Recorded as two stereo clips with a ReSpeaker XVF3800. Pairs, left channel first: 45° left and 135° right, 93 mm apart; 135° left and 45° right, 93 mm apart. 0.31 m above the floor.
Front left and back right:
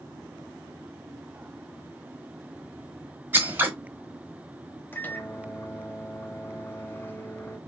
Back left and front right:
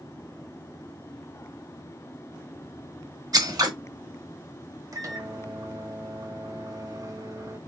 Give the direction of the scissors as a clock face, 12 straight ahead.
2 o'clock.